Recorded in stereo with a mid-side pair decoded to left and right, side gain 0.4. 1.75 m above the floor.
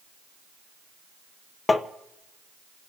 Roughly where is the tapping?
Ahead left.